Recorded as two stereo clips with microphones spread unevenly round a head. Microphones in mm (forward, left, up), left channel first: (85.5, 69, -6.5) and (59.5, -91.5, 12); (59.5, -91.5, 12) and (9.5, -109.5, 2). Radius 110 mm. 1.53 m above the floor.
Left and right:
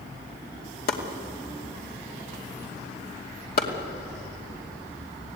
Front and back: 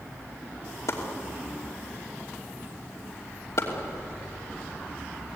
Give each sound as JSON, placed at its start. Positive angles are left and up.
{"t": 0.9, "sound": "chopping", "azimuth_deg": 60, "distance_m": 2.5}